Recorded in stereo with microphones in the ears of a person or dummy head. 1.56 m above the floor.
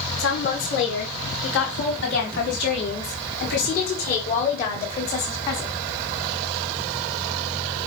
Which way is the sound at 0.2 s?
75° left (ahead or behind).